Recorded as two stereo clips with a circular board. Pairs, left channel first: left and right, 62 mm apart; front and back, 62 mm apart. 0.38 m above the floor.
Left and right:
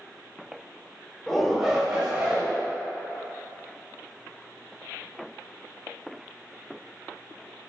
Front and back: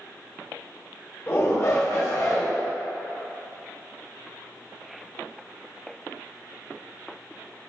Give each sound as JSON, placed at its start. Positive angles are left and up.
{"t": 1.3, "sound": "a shout", "azimuth_deg": 10, "distance_m": 1.0}